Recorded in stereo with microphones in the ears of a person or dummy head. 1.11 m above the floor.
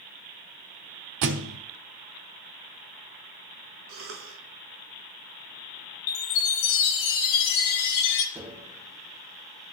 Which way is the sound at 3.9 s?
65° right (ahead or behind).